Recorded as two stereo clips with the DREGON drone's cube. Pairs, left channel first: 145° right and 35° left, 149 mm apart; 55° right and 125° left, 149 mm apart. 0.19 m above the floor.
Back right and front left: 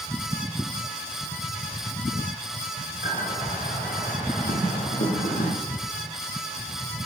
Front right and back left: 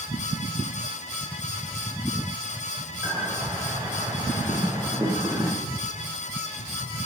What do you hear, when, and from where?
3.0 s a bird: 170° right, 5.5 m